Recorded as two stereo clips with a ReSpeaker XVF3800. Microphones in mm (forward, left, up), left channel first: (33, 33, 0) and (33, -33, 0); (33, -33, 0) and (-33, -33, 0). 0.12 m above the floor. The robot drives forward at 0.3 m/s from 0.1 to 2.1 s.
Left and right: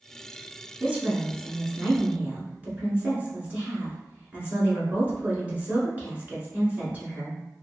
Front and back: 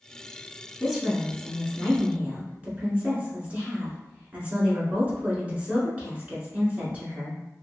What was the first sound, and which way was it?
A woman speaking, 90° right.